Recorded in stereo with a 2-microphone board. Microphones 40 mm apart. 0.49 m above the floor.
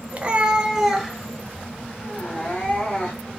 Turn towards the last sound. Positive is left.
turn(degrees=25)  # may be behind; listen again after turning